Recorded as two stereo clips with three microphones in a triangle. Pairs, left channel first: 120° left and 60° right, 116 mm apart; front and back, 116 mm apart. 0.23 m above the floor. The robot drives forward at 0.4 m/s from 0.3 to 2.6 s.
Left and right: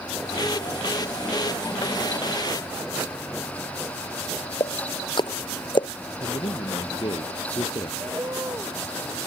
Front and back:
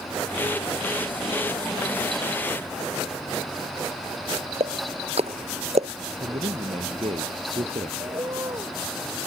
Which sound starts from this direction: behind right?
A bird, at 8.0 s.